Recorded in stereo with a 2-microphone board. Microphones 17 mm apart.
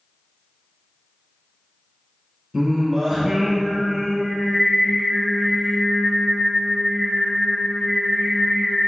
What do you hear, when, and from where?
2.5 s singing: 10° right (ahead or behind), 2.5 m